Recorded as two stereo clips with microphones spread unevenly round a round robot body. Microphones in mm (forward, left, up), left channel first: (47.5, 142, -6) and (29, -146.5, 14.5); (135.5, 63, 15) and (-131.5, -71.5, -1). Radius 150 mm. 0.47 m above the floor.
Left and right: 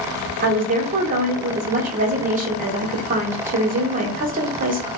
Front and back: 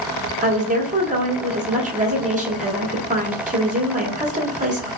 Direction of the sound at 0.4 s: 135° right.